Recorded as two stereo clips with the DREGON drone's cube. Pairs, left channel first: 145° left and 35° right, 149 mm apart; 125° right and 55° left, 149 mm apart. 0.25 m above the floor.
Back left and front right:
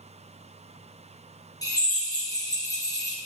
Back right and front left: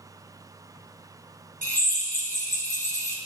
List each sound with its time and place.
1.6 s a drill: 150° right, 2.5 m